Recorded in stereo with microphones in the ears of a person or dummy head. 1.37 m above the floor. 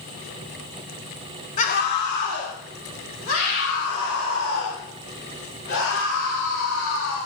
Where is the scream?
35° left (ahead or behind), 1.6 m; by 7.2 s 85° left, 9.5 m.